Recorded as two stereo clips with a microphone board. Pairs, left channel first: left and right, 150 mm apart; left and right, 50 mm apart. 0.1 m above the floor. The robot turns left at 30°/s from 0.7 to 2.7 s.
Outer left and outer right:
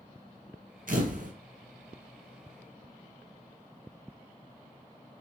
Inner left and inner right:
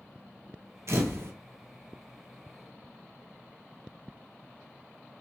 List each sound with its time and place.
0.9 s a camera shutter: 60° right (ahead or behind), 0.9 m; by 1.3 s 55° right (ahead or behind), 0.9 m